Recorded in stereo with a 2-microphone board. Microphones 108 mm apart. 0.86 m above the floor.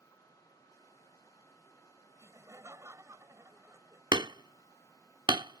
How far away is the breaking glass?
No breaking glass in this recording.